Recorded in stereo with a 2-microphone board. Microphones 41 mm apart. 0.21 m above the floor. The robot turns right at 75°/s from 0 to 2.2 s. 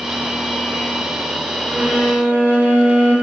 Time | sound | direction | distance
1.7 | a violin | 125° right | 1.1 m